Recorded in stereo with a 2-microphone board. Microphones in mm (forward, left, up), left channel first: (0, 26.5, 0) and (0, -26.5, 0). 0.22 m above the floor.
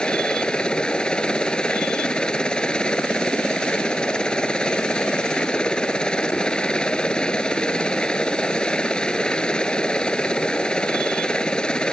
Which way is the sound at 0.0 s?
15° left (ahead or behind).